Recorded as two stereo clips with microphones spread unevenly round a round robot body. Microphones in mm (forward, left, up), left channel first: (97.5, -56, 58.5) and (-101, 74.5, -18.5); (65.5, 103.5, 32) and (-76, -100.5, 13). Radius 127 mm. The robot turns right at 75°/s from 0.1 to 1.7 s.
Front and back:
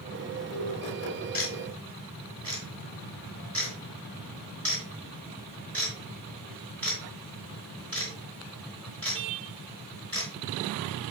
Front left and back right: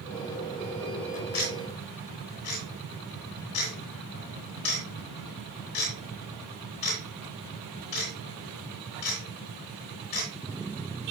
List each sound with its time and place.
1.3 s ticking: 25° left, 4 m; by 11.1 s 55° left, 4 m